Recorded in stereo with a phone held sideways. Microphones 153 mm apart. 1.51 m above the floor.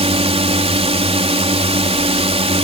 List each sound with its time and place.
0.0 s a drone: 40° right (ahead or behind)